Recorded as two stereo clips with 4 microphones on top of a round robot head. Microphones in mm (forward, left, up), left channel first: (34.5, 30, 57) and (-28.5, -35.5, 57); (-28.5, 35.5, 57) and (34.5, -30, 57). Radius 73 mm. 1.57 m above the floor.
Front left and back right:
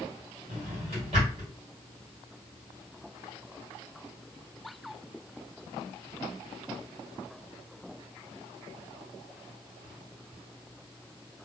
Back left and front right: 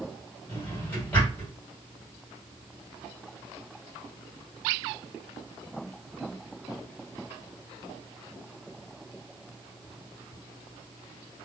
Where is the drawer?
155° right, 1.8 m.